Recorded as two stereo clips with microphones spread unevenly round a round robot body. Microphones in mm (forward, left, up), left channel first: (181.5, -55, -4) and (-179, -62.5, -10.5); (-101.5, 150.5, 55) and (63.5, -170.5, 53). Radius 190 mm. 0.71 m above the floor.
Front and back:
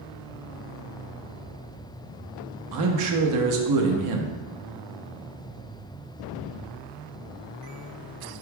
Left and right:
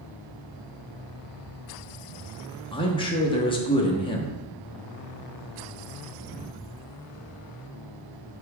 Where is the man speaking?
170° right, 0.8 m.